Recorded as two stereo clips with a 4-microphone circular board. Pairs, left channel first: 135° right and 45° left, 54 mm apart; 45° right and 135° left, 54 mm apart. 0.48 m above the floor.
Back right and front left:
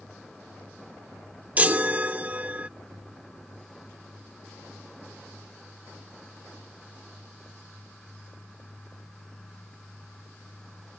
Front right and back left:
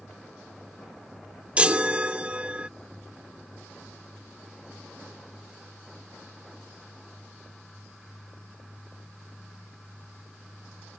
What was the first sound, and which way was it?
A chime, 85° left.